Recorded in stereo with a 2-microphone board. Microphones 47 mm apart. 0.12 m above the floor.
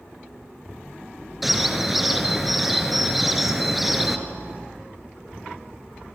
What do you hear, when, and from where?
1.4 s a bird: centre (ahead or behind), 1.8 m